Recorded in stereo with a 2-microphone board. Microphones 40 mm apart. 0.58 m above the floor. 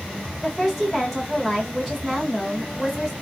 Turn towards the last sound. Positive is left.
turn(degrees=-5)  # may be behind; listen again after turning